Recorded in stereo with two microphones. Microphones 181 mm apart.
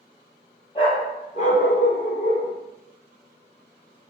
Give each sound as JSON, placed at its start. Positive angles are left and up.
{"t": 0.8, "sound": "a dog barking", "side_deg": 25, "distance_m": 1.6}